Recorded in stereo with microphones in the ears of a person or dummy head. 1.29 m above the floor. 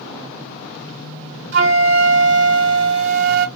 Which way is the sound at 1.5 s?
55° right (ahead or behind).